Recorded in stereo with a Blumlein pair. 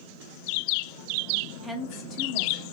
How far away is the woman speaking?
About 1.0 m.